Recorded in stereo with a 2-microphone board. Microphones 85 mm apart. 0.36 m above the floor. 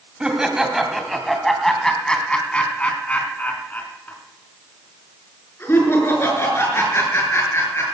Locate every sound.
0.2 s laughter: 10° right (ahead or behind), 2 m; by 7.8 s 35° left (ahead or behind), 6 m